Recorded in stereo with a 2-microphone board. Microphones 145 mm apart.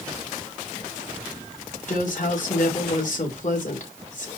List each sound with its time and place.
1.9 s a woman speaking: 60° left (ahead or behind), 5 m